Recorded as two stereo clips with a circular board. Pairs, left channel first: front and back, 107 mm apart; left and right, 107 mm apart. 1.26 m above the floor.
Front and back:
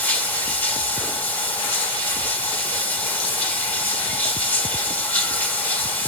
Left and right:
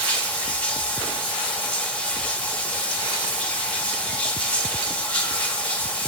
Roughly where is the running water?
Ahead left.